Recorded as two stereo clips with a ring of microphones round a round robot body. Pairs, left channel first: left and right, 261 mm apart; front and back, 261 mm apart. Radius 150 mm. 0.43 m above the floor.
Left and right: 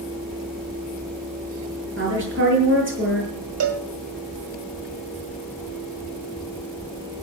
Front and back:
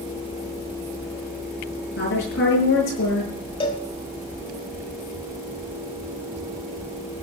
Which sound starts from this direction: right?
A cowbell, at 3.6 s.